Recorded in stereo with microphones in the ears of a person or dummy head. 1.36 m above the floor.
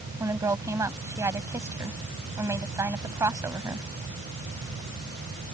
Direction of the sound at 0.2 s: 15° right (ahead or behind).